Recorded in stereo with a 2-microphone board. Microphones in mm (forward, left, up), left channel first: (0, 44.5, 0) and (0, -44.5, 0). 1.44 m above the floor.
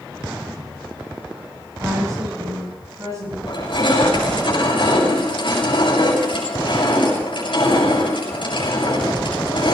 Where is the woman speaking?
35° right (ahead or behind), 10 m.